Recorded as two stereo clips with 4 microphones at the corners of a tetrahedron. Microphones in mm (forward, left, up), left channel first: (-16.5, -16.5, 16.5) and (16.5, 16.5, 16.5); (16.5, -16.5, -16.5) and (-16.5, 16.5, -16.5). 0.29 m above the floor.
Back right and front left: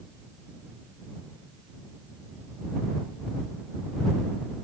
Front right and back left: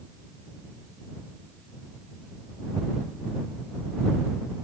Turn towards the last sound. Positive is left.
No sound to turn to.